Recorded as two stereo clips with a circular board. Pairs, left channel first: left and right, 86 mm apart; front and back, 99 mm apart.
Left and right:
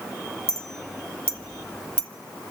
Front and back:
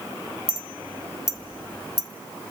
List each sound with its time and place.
0.5 s a clink: 25° left, 0.8 m